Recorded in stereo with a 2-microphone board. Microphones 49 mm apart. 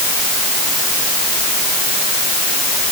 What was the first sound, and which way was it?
Only background noise.